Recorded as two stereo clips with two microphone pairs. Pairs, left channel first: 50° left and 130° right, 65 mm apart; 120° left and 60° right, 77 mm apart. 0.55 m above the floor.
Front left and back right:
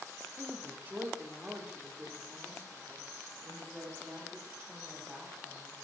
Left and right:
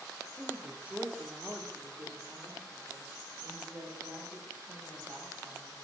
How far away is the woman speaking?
About 1.2 m.